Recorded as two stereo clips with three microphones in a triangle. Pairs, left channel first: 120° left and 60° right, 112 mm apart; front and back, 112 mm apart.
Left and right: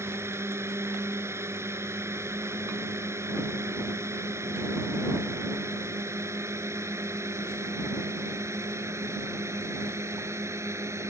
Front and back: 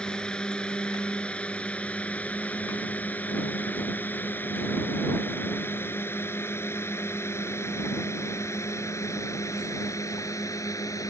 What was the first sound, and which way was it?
A drone, 70° right.